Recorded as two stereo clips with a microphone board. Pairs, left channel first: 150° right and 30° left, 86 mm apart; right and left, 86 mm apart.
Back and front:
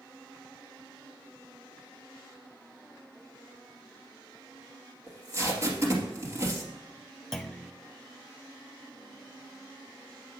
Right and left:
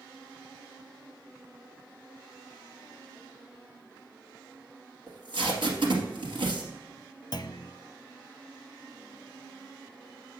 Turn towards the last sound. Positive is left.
turn(degrees=-65)